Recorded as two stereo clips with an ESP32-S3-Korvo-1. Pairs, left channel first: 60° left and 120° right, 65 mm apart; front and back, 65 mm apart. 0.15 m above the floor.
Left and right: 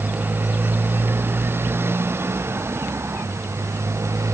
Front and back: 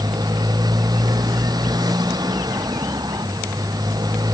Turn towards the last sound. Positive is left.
turn(degrees=-165)